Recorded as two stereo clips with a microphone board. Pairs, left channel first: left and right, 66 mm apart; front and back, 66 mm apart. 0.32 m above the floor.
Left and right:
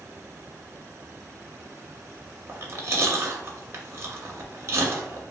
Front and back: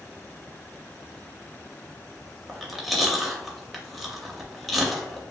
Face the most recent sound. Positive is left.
turn(degrees=-90)